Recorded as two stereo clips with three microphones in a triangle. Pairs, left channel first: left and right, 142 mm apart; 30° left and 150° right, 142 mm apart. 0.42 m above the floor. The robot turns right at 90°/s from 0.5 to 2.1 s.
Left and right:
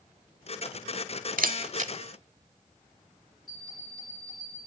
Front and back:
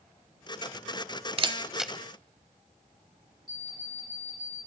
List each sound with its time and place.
1.4 s a camera shutter: 105° right, 0.8 m; by 1.9 s 55° right, 0.8 m
3.5 s an alarm clock: 150° left, 3 m